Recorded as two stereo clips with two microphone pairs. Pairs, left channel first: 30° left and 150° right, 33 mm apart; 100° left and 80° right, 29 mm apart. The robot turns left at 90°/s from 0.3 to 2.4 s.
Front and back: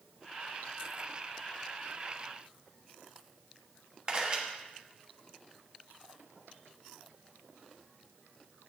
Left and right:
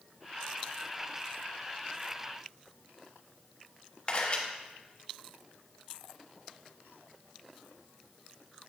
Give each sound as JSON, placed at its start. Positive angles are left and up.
{"t": 4.1, "sound": "a camera shutter", "azimuth_deg": 150, "distance_m": 1.3}